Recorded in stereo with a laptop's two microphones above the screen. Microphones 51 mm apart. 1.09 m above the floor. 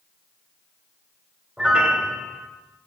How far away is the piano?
About 2 m.